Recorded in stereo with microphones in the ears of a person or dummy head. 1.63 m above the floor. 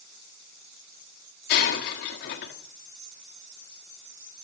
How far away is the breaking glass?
About 1.5 m.